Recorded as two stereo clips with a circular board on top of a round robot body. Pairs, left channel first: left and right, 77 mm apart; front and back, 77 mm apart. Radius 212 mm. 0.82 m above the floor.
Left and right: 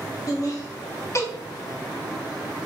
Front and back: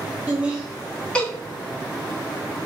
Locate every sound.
0.3 s laughter: 115° left, 1.0 m; by 1.3 s 65° left, 0.9 m